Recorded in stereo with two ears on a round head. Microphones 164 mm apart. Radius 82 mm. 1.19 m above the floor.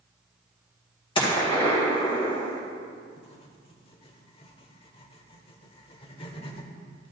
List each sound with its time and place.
1.1 s a gunshot: 25° left (ahead or behind), 1.9 m
3.2 s writing: 30° left (ahead or behind), 1.0 m